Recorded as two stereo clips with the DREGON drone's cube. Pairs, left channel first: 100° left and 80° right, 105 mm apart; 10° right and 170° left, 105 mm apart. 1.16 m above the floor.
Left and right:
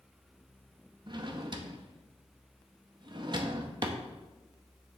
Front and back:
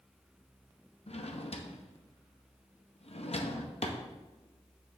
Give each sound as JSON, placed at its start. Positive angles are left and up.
{"t": 1.1, "sound": "a drawer", "azimuth_deg": -30, "distance_m": 0.8}